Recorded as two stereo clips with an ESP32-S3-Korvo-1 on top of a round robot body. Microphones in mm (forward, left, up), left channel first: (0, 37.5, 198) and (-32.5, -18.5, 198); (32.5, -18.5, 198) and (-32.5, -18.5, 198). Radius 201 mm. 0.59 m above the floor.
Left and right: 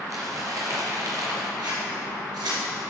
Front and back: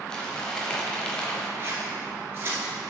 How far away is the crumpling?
About 0.9 m.